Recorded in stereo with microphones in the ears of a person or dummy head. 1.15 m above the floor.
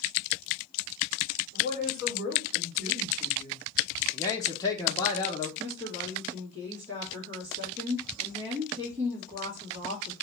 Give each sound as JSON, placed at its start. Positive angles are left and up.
{"t": 1.5, "sound": "a woman speaking", "side_deg": -30, "distance_m": 3.0}
{"t": 4.1, "sound": "a man speaking", "side_deg": 15, "distance_m": 1.0}
{"t": 5.6, "sound": "a woman speaking", "side_deg": -35, "distance_m": 2.5}